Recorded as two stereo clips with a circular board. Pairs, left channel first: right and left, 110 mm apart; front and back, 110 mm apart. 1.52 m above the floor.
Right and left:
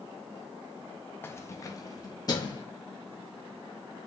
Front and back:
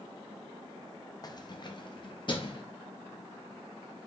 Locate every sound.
1.2 s keys jangling: 30° right, 0.5 m; by 2.6 s 40° right, 1.4 m